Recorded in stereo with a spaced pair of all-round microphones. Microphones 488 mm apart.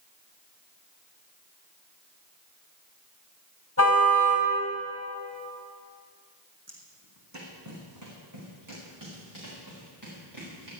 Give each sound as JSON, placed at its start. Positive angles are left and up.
{"t": 3.8, "sound": "a car horn", "side_deg": 25, "distance_m": 3.5}
{"t": 6.7, "sound": "footsteps", "side_deg": -30, "distance_m": 3.5}